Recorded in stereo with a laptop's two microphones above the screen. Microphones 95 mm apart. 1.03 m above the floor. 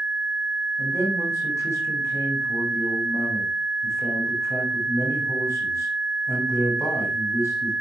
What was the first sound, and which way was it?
A man speaking, 30° left (ahead or behind).